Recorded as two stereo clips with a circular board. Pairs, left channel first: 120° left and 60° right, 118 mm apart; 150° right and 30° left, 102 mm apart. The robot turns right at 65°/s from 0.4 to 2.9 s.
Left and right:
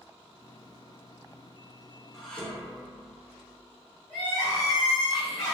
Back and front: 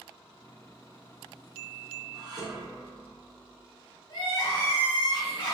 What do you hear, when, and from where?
2.1 s dishes clattering: 30° left, 0.6 m; by 3.7 s 80° left, 0.6 m
4.1 s crying: 155° right, 1.4 m